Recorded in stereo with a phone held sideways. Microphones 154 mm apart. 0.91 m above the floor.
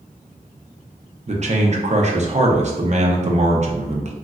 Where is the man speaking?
50° right (ahead or behind), 0.6 m.